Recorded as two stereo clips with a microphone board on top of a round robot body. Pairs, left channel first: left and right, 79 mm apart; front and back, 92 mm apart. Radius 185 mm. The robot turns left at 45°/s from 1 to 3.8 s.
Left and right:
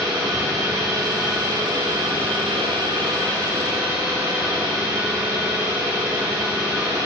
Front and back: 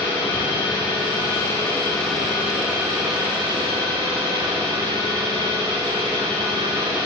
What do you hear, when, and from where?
0.0 s an engine running: 35° right, 9 m; by 7.1 s 160° right, 9 m